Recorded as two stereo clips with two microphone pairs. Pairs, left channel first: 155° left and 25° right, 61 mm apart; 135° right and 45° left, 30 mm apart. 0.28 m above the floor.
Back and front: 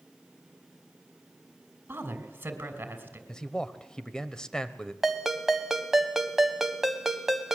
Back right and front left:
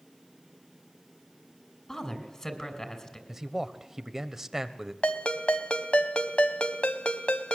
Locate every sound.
1.9 s a woman speaking: 75° right, 3 m
3.3 s a man speaking: 95° left, 0.9 m
5.0 s a ringtone: 105° right, 1.3 m